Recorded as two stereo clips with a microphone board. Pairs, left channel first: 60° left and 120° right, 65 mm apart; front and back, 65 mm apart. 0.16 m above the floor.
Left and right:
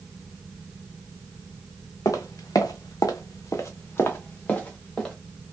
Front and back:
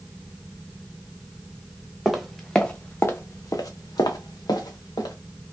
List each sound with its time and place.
2.0 s footsteps: 95° left, 0.8 m; by 5.2 s 20° right, 1.1 m